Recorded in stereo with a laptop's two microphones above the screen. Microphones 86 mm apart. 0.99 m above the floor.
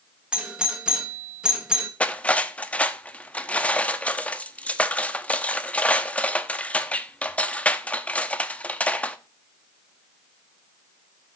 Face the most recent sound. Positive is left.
turn(degrees=15)  # may be behind; listen again after turning